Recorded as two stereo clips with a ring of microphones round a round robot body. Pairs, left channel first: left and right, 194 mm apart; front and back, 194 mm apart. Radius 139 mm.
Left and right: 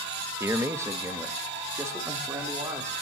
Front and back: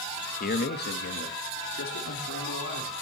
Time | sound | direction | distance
0.4 | a man speaking | 15° right | 1.3 m